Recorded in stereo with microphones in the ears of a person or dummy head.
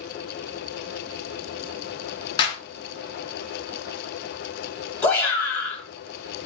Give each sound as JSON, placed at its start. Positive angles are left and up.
{"t": 2.4, "sound": "a clap", "side_deg": 25, "distance_m": 0.9}
{"t": 5.0, "sound": "a shout", "side_deg": 10, "distance_m": 1.6}